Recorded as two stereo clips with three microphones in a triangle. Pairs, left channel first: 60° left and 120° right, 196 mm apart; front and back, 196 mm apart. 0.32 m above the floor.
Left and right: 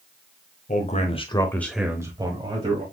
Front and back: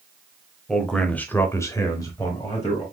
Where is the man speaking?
90° left, 1.2 m; by 2.8 s 70° right, 1.6 m.